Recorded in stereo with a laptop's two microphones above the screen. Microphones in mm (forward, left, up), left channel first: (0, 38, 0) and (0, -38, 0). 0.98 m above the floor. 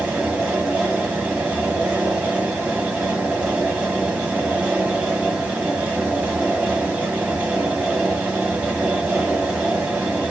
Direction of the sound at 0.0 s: 10° right (ahead or behind).